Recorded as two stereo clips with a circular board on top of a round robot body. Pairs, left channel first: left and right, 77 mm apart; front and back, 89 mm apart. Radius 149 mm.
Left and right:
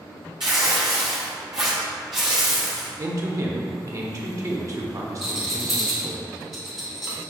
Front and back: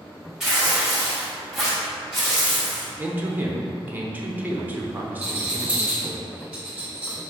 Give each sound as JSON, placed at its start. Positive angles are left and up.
{"t": 0.4, "sound": "tearing paper", "azimuth_deg": -100, "distance_m": 0.6}
{"t": 3.0, "sound": "a man speaking", "azimuth_deg": -115, "distance_m": 0.8}
{"t": 5.2, "sound": "a rattle", "azimuth_deg": -165, "distance_m": 0.9}